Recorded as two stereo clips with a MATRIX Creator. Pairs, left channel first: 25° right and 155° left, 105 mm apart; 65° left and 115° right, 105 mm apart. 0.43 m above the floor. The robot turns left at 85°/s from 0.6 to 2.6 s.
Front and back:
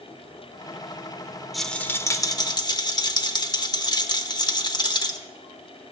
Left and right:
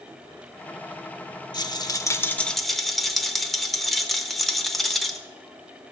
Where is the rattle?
70° left, 0.7 m; by 5.2 s 20° right, 0.7 m.